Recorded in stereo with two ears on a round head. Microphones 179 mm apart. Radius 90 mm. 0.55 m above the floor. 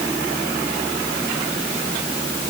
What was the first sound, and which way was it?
Only background noise.